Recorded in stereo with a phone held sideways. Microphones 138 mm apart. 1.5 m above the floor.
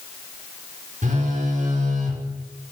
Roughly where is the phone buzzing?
Right.